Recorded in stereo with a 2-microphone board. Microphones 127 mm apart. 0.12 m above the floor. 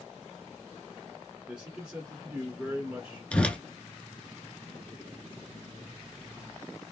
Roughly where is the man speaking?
Centre.